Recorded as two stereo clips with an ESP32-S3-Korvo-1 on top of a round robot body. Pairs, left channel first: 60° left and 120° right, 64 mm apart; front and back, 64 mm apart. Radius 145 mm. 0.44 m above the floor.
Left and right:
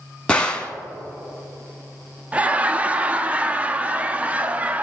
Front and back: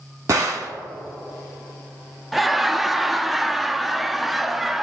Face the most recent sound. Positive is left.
turn(degrees=-95)